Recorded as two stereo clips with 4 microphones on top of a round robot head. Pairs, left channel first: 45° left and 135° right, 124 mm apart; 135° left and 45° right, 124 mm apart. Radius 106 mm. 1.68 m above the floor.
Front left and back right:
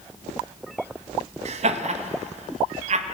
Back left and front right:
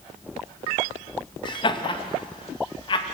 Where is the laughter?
170° right, 2.5 m.